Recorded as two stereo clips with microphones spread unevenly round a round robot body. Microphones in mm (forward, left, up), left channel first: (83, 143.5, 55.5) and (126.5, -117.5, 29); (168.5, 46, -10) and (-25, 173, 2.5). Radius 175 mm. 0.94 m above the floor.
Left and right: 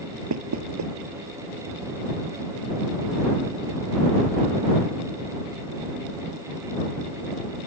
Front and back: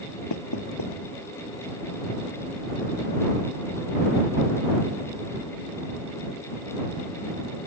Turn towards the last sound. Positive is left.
turn(degrees=-60)